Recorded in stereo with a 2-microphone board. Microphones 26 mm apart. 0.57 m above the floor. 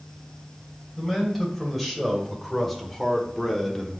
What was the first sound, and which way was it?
A man speaking, centre (ahead or behind).